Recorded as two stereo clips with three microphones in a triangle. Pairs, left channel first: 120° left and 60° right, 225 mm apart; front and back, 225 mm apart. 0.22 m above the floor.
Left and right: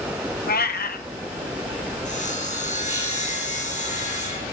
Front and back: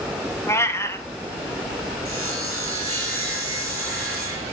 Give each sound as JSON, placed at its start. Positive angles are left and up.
{"t": 0.5, "sound": "a cat meowing", "azimuth_deg": 80, "distance_m": 0.7}
{"t": 2.0, "sound": "sawing", "azimuth_deg": 175, "distance_m": 3.0}